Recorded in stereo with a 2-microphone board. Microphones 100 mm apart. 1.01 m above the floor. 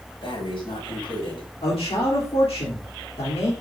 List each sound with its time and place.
0.2 s breathing: 60° left (ahead or behind), 5.5 m
1.6 s a man speaking: 80° left, 3 m